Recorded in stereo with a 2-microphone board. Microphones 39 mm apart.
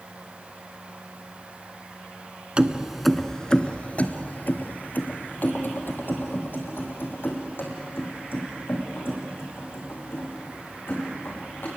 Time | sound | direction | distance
2.6 | keys jangling | 25° right (ahead or behind) | 0.8 m